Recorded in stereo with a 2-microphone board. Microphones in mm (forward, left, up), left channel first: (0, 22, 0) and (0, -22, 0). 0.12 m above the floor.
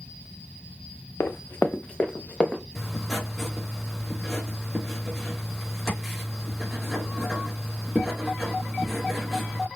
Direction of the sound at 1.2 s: 65° left (ahead or behind).